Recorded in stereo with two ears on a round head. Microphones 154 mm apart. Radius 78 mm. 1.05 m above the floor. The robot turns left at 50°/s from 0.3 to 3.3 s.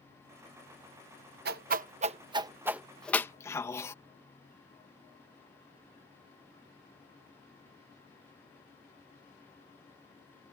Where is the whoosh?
60° right (ahead or behind); by 3.9 s 15° left (ahead or behind).